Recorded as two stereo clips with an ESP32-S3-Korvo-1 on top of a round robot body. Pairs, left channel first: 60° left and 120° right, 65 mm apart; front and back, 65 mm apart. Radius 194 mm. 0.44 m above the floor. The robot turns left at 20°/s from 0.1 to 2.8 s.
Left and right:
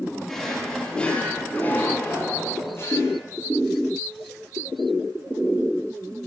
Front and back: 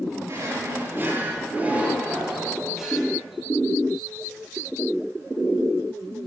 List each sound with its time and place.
0.3 s a drawer: 145° left, 6.5 m; by 3.2 s 95° left, 6.5 m